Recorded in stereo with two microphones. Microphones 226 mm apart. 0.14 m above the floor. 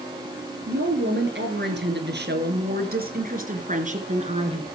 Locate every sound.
0.7 s a woman speaking: 55° right (ahead or behind), 3 m; by 4.6 s 25° right (ahead or behind), 2.5 m